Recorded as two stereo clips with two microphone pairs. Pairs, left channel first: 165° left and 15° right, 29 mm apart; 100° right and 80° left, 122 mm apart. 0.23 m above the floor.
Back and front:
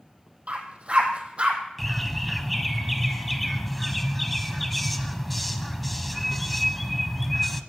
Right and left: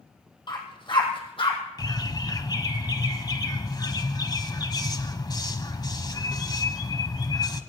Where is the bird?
100° right, 1.2 m.